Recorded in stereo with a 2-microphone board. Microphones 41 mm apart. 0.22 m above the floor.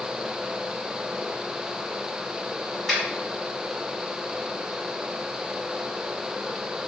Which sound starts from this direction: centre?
A finger snap, at 2.9 s.